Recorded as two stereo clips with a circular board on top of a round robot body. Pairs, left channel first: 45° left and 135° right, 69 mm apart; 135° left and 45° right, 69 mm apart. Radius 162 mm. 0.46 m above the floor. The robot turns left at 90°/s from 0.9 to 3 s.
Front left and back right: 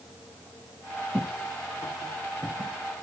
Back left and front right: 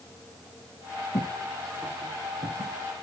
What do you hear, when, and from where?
1.1 s footsteps: 150° left, 0.8 m; by 2.8 s 80° right, 1.9 m